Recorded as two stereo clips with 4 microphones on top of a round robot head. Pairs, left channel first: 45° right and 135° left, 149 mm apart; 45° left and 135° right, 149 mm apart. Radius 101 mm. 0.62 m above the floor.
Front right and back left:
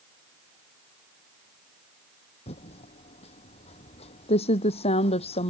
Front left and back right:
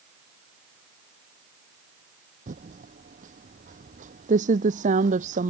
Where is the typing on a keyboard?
95° right.